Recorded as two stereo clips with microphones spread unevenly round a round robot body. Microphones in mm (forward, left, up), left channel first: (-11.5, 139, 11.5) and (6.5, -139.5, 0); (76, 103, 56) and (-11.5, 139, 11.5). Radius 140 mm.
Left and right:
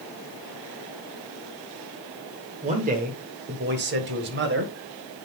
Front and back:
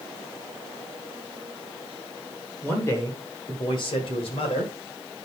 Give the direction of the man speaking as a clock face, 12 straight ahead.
4 o'clock.